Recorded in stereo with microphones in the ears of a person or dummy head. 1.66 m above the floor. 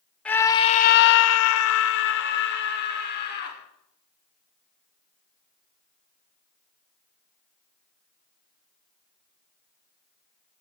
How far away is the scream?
About 1.0 m.